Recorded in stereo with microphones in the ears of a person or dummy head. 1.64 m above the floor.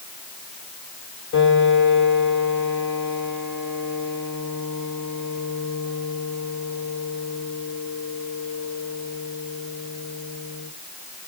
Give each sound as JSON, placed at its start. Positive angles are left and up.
{"t": 1.3, "sound": "a piano", "side_deg": 75, "distance_m": 5.0}